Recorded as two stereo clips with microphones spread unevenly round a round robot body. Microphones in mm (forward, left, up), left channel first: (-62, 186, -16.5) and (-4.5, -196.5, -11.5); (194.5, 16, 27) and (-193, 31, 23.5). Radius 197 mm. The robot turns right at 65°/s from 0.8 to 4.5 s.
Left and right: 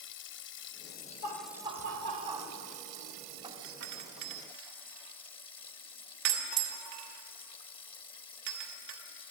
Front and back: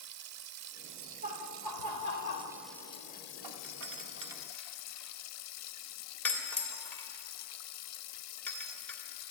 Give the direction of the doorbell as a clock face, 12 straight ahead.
5 o'clock.